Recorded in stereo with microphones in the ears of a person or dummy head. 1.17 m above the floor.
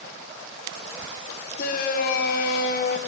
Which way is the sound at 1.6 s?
55° left (ahead or behind).